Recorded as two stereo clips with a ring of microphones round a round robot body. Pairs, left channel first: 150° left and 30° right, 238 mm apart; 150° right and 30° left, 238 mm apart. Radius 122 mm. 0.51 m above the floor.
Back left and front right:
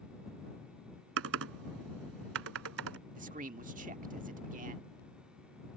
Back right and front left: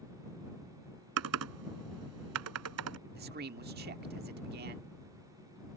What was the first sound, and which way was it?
Typing on a keyboard, 5° left.